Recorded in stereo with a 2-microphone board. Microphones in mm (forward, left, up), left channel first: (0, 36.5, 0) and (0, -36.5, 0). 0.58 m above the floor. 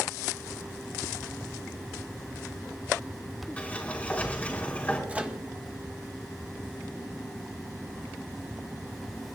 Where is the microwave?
20° right (ahead or behind), 1.0 m.